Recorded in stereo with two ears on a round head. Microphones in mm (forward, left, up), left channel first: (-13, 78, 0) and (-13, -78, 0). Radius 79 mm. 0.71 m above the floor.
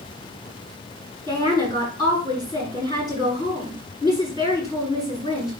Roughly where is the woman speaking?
Left.